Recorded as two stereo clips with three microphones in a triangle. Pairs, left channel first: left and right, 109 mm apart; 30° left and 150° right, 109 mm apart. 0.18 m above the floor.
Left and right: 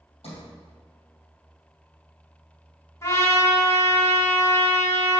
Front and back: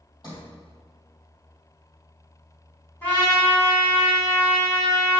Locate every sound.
0.2 s a sliding door: 80° left, 2.5 m
3.0 s a trumpet: 85° left, 1.6 m